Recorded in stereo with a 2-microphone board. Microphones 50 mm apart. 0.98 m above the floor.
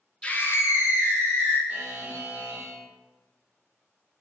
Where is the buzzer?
35° right (ahead or behind), 1.0 m.